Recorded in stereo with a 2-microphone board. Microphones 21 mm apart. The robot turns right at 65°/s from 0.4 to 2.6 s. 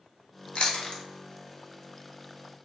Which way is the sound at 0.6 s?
60° left (ahead or behind).